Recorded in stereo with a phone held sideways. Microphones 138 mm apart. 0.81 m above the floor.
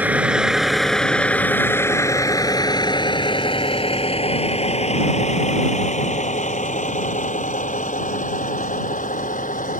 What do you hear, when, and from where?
0.0 s a vehicle: 10° right (ahead or behind); by 9.8 s 70° left (ahead or behind)